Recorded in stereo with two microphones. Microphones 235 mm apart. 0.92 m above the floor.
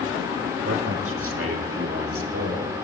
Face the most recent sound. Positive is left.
turn(degrees=-75)  # may be behind; listen again after turning